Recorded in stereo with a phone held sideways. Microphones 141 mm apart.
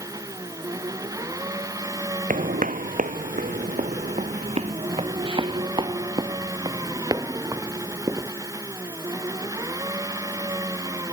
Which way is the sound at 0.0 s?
25° right (ahead or behind).